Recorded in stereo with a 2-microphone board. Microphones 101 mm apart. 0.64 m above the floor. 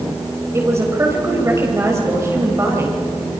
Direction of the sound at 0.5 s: 30° right (ahead or behind).